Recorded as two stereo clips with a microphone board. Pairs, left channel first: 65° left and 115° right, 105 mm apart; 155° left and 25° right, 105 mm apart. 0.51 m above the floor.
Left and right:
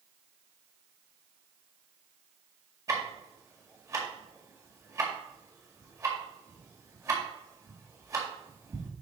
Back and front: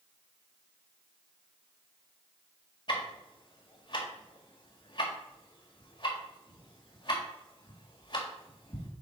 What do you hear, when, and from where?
2.9 s ticking: 170° right, 1.8 m